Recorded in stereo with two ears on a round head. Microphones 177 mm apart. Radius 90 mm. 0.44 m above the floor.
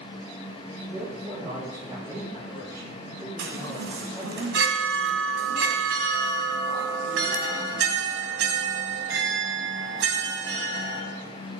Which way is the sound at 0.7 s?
20° right (ahead or behind).